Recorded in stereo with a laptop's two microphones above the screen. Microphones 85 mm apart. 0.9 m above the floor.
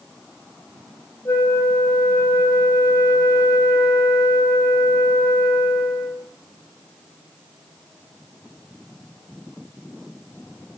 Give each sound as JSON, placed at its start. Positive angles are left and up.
{"t": 1.2, "sound": "a flute", "side_deg": 30, "distance_m": 0.5}